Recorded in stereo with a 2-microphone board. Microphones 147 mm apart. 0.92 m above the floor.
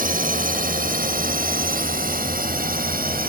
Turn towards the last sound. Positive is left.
turn(degrees=-75)  # may be behind; listen again after turning